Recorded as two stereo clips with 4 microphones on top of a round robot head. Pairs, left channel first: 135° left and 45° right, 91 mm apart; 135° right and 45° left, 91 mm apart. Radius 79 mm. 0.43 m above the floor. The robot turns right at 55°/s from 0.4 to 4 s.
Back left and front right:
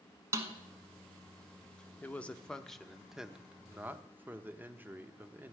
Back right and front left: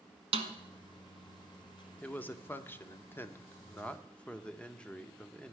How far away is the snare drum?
About 1.0 m.